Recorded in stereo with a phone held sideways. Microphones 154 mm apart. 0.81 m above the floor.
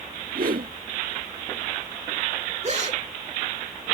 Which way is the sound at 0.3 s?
70° right (ahead or behind).